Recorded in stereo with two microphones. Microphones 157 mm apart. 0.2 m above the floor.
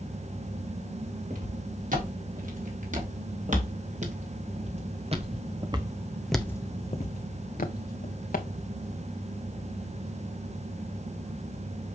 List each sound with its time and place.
1.3 s footsteps: 65° right (ahead or behind), 5 m; by 8.5 s 85° left, 1.9 m